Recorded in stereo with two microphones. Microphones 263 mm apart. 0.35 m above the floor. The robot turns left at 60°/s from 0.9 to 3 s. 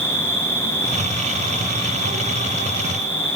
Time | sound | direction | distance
0.0 | an insect | 30° right | 1.7 m